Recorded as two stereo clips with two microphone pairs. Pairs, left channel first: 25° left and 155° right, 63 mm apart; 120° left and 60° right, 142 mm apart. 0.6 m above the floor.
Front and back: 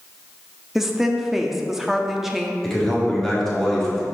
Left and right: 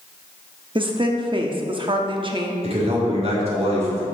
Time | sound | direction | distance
0.8 | a woman speaking | 75° right | 0.8 m
2.6 | a man speaking | 60° right | 1.7 m